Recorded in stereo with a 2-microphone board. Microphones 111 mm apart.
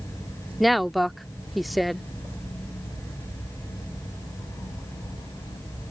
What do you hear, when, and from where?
0.6 s a woman speaking: centre (ahead or behind)